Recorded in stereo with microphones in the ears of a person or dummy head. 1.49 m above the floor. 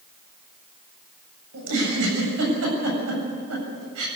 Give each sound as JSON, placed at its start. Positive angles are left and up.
{"t": 1.5, "sound": "a giggle", "side_deg": -80, "distance_m": 7.5}